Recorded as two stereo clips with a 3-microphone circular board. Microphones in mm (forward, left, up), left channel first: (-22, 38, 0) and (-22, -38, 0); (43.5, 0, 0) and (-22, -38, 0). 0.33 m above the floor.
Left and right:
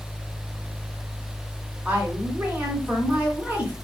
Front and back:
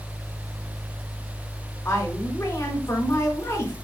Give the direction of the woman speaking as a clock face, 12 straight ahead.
1 o'clock.